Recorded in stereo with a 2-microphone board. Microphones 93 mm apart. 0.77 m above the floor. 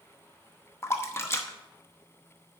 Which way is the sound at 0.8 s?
30° left (ahead or behind).